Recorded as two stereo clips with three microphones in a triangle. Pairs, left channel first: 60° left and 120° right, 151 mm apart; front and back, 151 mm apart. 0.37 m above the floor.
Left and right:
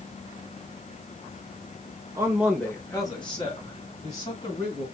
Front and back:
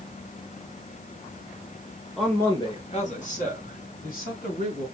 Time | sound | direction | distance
2.2 | a man speaking | 90° right | 1.1 m